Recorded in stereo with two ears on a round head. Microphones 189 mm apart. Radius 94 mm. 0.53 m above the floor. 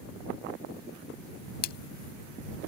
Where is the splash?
45° left (ahead or behind).